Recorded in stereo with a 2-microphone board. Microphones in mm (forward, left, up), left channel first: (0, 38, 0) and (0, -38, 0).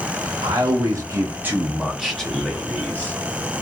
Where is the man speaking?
65° right (ahead or behind), 0.8 m; by 3.1 s 25° left (ahead or behind), 1.3 m.